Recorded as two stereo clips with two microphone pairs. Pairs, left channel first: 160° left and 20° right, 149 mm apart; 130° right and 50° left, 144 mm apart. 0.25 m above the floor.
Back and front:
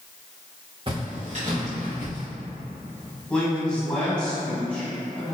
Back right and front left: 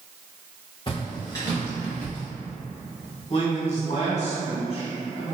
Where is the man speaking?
125° right, 1.4 m.